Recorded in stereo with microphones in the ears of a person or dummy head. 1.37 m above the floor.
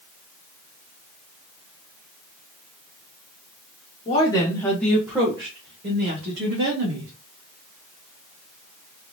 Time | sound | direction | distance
4.0 | a woman speaking | 35° left (ahead or behind) | 1.3 m